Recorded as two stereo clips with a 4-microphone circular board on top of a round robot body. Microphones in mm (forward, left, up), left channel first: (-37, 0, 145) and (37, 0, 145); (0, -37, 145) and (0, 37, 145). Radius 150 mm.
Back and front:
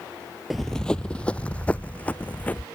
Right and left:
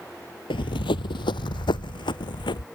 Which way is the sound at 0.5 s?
90° right.